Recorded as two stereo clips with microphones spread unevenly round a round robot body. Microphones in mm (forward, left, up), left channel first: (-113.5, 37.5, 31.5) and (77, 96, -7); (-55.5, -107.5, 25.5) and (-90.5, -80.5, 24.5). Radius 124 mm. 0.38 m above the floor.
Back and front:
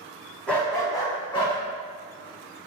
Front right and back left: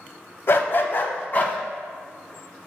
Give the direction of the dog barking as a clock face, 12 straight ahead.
2 o'clock.